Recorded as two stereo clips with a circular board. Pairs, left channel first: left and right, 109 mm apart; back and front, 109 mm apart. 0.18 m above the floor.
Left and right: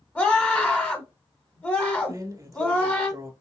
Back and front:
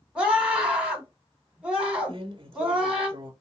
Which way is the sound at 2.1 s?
35° right.